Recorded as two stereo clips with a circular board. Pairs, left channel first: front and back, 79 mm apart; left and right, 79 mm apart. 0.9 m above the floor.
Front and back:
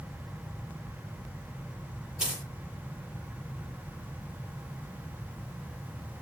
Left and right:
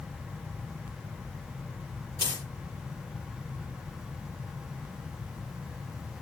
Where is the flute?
I don't hear a flute.